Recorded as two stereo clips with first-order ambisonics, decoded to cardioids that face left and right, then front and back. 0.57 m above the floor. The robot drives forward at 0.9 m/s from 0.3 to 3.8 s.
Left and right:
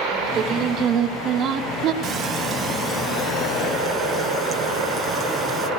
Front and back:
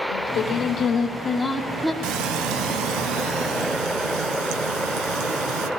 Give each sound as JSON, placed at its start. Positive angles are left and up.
{"t": 0.1, "sound": "singing", "azimuth_deg": -30, "distance_m": 1.9}
{"t": 2.0, "sound": "frying", "azimuth_deg": -150, "distance_m": 0.9}